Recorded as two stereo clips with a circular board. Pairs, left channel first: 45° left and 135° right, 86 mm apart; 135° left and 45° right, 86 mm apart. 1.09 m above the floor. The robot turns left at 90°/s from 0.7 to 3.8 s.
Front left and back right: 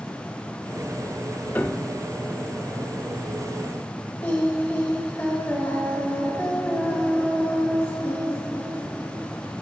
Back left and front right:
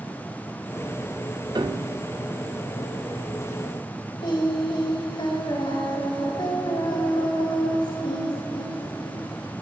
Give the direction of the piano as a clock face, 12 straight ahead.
1 o'clock.